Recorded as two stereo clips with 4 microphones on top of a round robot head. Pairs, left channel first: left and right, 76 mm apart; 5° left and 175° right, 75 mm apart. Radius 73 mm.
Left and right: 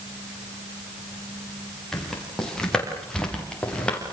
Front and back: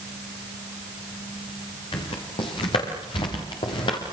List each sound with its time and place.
1.9 s footsteps: 5° left, 8 m; by 4.0 s 15° left, 6 m